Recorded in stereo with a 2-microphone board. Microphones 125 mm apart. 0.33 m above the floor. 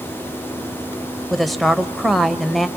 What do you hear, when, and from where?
1.3 s a woman speaking: centre (ahead or behind), 1.0 m